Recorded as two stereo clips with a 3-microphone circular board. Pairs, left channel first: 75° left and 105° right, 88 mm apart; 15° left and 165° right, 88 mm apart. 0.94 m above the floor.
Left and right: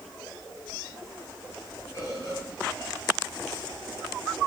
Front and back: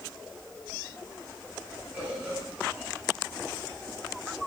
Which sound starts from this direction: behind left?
A bird, at 1.9 s.